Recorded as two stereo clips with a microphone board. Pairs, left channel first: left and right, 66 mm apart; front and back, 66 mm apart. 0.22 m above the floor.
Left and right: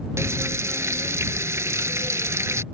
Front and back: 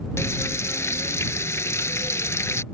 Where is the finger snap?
No finger snap in this recording.